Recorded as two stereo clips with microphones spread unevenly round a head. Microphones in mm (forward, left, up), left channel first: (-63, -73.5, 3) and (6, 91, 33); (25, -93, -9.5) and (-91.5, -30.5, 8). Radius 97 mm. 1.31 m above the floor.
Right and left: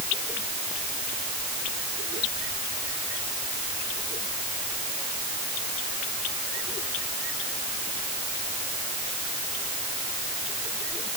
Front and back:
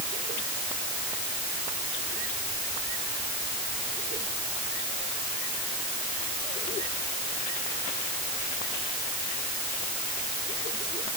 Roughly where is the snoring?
No snoring in this recording.